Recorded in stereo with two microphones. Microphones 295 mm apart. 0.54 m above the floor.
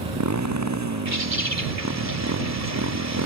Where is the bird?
65° right (ahead or behind).